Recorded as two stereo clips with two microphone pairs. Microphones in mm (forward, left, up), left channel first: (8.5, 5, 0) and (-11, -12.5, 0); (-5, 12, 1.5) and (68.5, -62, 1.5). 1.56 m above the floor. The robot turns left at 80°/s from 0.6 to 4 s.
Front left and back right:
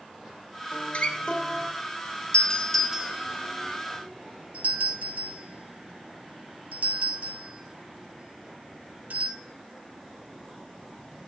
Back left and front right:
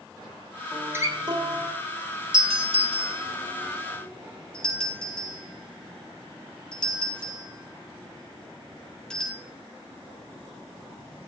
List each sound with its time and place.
0.7 s a guitar: 35° left, 2.5 m; by 1.7 s 45° right, 2.5 m
2.3 s a doorbell: 10° right, 4 m; by 9.4 s 145° right, 4 m